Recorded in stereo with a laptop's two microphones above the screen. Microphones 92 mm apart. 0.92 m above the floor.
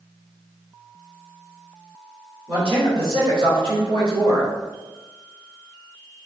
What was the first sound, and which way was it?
A man speaking, 70° right (ahead or behind).